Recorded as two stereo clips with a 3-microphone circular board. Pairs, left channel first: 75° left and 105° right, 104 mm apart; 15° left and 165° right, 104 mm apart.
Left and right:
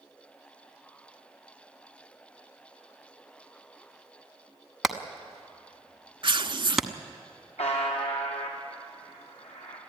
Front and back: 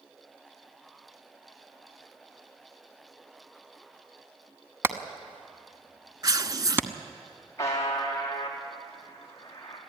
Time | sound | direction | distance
4.8 | hammering | 175° left | 1.1 m
6.2 | tearing paper | 125° right | 0.5 m
7.6 | a buzzer | 80° left | 5 m